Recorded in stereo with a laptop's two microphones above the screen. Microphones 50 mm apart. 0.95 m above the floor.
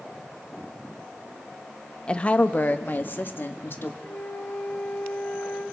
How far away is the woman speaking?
About 1.0 m.